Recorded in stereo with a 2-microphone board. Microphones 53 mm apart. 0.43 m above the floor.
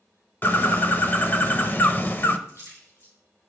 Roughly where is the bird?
Left.